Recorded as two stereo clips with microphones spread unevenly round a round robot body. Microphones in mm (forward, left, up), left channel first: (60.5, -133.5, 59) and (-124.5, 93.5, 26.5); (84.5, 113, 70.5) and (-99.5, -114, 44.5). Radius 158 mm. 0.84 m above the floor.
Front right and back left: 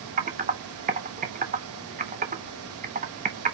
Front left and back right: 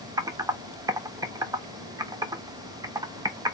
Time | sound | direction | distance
0.2 | typing on a keyboard | 165° left | 0.7 m